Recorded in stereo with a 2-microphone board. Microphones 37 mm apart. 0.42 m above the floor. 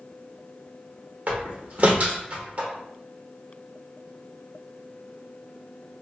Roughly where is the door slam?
Right.